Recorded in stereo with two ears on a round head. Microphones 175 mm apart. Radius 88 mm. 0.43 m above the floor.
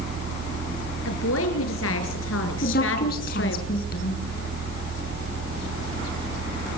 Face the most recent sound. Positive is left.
turn(degrees=50)  # may be behind; listen again after turning